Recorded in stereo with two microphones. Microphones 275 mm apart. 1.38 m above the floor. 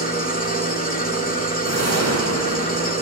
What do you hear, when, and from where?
0.0 s an engine running: 30° left (ahead or behind), 1.7 m
1.6 s a whoosh: 65° right (ahead or behind), 1.1 m